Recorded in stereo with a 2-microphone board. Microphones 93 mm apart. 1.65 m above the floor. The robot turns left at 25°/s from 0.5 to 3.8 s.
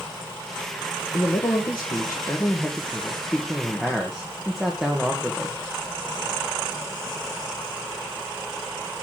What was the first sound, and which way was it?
A man speaking, 65° left.